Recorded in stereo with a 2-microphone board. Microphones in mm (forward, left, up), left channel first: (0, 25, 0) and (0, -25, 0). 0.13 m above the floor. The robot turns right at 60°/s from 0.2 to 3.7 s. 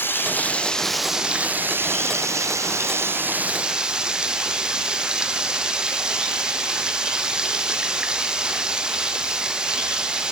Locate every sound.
0.0 s running water: 130° left, 1.4 m; by 10.3 s 20° right, 1.4 m